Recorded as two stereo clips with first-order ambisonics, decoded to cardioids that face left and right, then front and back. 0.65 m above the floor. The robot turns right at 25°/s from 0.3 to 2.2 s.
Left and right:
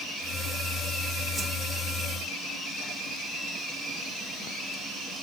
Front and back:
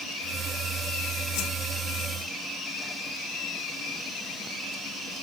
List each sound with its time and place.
1.4 s a whoosh: 10° right, 1.2 m; by 1.5 s 5° right, 1.2 m